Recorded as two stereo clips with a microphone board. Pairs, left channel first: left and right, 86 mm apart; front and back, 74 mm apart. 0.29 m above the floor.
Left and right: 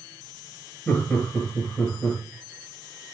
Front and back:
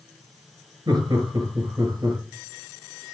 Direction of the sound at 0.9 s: 160° left.